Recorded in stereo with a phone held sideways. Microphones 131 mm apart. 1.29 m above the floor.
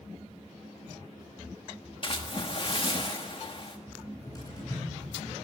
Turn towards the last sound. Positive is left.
turn(degrees=30)  # may be behind; listen again after turning